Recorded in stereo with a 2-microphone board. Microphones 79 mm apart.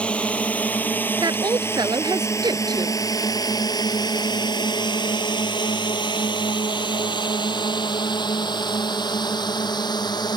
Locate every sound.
0.0 s a drone: 15° left (ahead or behind); by 10.4 s 60° left (ahead or behind)
1.2 s a woman speaking: 60° right (ahead or behind)